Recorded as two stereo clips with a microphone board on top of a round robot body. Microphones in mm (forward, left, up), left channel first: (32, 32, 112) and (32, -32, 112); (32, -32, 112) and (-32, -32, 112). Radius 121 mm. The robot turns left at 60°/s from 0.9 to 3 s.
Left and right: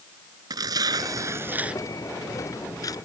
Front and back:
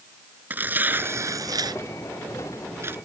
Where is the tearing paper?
115° right; by 3.0 s 120° left.